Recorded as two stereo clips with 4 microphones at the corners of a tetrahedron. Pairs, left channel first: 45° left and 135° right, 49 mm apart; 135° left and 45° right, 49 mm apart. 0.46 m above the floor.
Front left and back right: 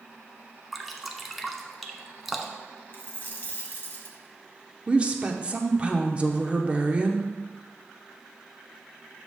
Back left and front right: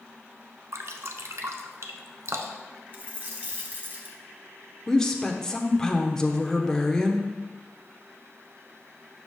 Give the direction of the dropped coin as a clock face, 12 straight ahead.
12 o'clock.